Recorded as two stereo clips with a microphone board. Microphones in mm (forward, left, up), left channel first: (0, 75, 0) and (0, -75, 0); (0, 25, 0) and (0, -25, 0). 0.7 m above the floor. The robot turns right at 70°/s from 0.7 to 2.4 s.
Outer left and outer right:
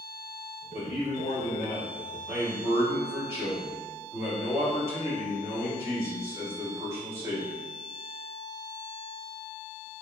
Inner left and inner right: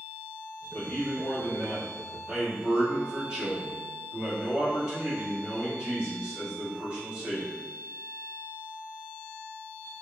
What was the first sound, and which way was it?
A man speaking, 90° left.